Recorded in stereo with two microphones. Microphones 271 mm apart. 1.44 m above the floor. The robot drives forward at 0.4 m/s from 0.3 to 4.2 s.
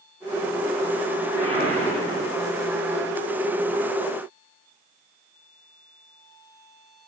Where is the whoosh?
30° right (ahead or behind), 1.3 m; by 2.4 s 25° right (ahead or behind), 1.3 m.